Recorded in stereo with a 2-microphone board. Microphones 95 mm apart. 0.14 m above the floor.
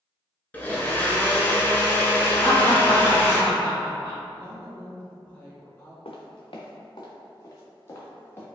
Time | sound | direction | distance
0.5 | a blender | 20° left (ahead or behind) | 0.9 m
2.4 | laughter | 35° left (ahead or behind) | 1.6 m
4.3 | a woman speaking | 15° left (ahead or behind) | 1.3 m
6.0 | footsteps | 75° left (ahead or behind) | 0.9 m